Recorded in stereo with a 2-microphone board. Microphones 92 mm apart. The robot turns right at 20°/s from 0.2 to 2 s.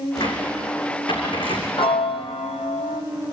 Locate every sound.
0.1 s a cupboard door: 45° left (ahead or behind), 7 m; by 1.7 s 75° left (ahead or behind), 7 m
1.8 s a piano: 70° left (ahead or behind), 1.2 m; by 3.0 s 75° left (ahead or behind), 1.2 m